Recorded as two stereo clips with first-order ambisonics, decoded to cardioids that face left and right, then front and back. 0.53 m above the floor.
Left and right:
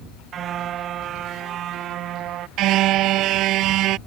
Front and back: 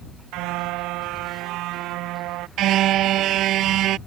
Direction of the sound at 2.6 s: 135° right.